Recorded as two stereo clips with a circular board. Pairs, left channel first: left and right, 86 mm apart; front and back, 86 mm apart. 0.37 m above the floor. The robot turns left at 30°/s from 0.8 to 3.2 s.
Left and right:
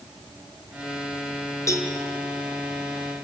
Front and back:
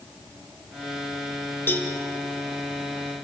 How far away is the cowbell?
About 2 m.